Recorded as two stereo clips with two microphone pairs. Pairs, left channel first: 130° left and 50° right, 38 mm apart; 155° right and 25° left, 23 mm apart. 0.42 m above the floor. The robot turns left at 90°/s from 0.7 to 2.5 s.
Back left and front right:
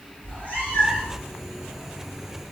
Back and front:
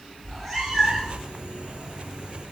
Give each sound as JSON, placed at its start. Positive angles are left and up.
{"t": 0.2, "sound": "a cat meowing", "azimuth_deg": 115, "distance_m": 2.0}